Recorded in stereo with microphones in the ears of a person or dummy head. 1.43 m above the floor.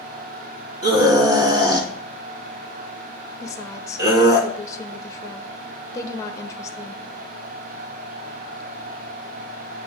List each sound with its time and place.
0.8 s a scream: 25° right (ahead or behind), 1.7 m
3.4 s a woman speaking: 20° left (ahead or behind), 0.7 m